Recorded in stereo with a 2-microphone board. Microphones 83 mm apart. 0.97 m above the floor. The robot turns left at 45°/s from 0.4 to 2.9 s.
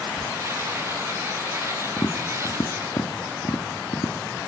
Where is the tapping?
40° left (ahead or behind), 1.7 m; by 4.5 s 75° left (ahead or behind), 1.7 m.